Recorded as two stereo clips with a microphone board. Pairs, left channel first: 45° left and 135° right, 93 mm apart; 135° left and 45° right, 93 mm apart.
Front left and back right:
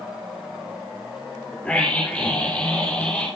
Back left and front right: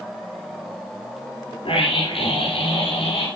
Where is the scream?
125° left, 5 m.